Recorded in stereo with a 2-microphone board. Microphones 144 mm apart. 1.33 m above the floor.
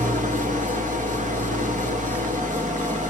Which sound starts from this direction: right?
An engine running, at 0.0 s.